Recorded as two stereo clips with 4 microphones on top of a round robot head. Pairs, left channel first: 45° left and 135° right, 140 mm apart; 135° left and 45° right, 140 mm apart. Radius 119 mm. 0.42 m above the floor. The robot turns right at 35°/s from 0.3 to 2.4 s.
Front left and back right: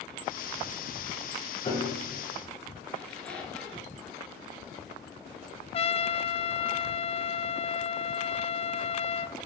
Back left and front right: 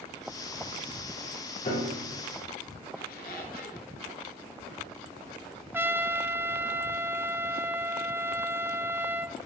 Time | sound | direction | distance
1.6 | a piano | 95° left | 6.5 m
3.0 | a squeak | 130° left | 3 m
5.7 | a trumpet | 25° left | 1.0 m